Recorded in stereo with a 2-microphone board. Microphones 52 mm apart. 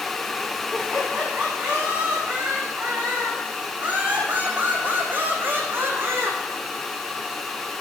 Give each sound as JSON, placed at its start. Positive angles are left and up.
{"t": 0.7, "sound": "laughter", "side_deg": -15, "distance_m": 8.0}